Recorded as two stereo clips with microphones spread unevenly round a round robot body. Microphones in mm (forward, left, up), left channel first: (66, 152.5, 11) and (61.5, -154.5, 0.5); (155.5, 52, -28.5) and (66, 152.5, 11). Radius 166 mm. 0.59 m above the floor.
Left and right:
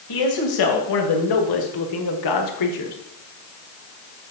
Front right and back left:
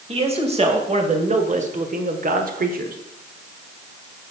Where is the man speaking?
85° left, 2.5 m; by 3.0 s 125° left, 1.4 m.